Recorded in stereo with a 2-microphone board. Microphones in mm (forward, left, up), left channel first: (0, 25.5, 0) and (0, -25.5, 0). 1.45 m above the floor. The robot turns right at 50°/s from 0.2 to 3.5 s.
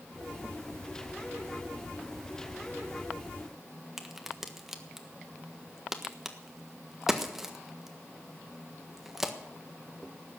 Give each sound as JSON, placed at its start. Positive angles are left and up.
{"t": 4.0, "sound": "a crack", "side_deg": -5, "distance_m": 1.5}